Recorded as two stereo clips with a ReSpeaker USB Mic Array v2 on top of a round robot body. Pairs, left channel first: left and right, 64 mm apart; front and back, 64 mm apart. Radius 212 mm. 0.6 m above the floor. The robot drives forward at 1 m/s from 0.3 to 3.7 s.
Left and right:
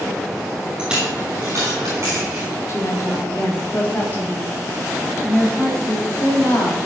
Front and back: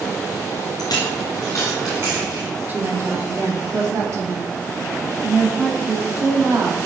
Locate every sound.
0.8 s a dropped coin: 10° right, 1.2 m; by 2.5 s 160° right, 0.8 m
2.7 s a woman speaking: 125° left, 1.6 m; by 6.8 s 150° left, 2.5 m